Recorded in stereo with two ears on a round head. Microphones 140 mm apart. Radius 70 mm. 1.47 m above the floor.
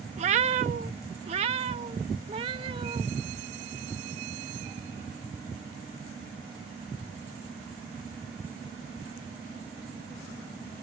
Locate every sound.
0.2 s a cat meowing: 45° right (ahead or behind); by 3.0 s 35° right (ahead or behind)